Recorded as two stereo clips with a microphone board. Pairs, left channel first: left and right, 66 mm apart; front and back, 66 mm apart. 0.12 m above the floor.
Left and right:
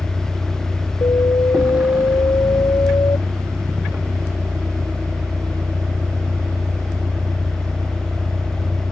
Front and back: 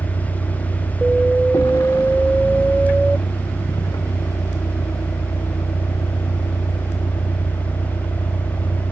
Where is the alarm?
85° left.